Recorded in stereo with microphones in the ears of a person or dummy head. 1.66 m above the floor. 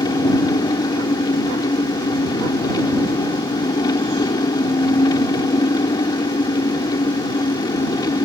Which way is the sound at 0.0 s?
20° left (ahead or behind).